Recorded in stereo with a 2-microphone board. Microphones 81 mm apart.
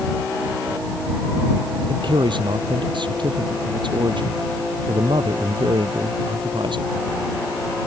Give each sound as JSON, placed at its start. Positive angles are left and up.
{"t": 1.9, "sound": "a man speaking", "side_deg": -75}